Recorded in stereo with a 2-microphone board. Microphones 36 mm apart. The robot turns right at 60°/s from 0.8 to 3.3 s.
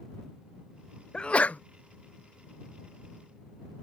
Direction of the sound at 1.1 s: 25° left (ahead or behind).